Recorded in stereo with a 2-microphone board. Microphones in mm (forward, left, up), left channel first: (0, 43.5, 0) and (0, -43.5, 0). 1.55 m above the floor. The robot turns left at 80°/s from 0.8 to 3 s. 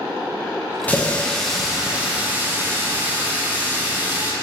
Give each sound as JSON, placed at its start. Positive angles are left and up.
{"t": 0.9, "sound": "a running tap", "side_deg": 20, "distance_m": 0.6}